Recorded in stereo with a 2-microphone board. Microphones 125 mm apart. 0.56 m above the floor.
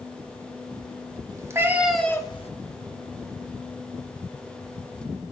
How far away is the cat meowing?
About 1.2 m.